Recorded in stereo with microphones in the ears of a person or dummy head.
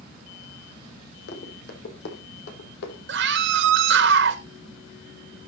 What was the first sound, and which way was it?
Running footsteps, 65° left (ahead or behind).